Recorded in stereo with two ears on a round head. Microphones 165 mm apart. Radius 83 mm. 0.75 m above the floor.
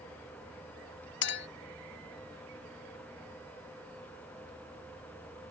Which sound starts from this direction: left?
A clink, at 1.2 s.